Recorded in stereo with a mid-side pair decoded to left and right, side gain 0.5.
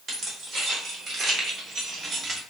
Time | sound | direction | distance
0.1 | keys jangling | 55° right | 1.9 m